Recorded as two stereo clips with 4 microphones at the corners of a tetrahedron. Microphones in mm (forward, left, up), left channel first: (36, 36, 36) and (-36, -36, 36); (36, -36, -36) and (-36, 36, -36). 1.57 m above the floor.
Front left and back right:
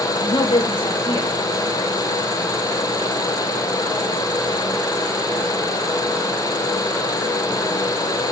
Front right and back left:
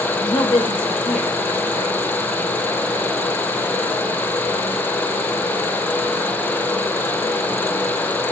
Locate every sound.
0.2 s a woman speaking: straight ahead, 2 m; by 2.0 s 10° right, 3.5 m